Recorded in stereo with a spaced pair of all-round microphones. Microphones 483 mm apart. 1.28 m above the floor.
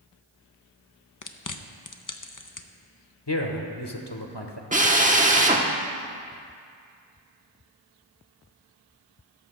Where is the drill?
15° right (ahead or behind), 1.0 m.